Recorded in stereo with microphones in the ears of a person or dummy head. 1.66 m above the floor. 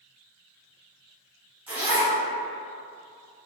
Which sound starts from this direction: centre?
A zipper, at 1.7 s.